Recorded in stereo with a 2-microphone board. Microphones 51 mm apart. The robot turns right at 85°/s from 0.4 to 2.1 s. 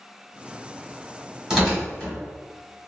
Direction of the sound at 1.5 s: 15° right (ahead or behind).